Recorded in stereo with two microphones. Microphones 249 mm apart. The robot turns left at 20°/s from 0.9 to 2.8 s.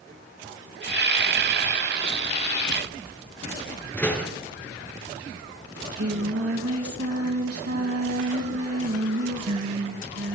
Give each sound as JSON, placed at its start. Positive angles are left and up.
{"t": 3.9, "sound": "a door slam", "side_deg": 5, "distance_m": 5.0}
{"t": 5.8, "sound": "singing", "side_deg": -70, "distance_m": 3.0}